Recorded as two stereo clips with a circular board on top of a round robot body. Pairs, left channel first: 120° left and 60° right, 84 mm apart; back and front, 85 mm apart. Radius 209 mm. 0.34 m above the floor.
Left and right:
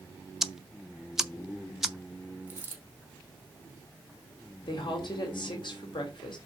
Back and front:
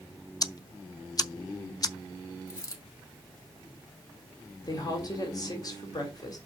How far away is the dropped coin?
About 2 m.